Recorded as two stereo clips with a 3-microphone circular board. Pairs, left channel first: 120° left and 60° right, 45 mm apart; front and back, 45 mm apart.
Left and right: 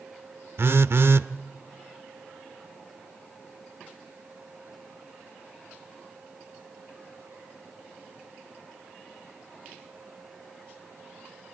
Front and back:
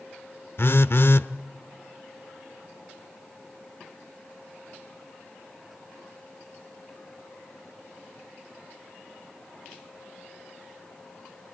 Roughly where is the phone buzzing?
Ahead right.